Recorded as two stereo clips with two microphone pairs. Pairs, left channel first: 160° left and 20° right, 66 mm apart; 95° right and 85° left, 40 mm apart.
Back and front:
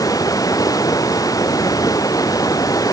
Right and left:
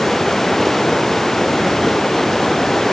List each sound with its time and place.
0.0 s running water: 175° right